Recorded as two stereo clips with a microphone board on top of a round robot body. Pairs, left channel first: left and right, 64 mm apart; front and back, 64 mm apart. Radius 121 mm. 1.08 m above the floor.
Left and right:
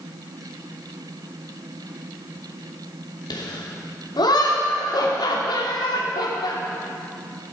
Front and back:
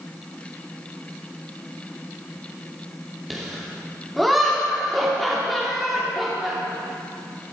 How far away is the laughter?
About 2.5 m.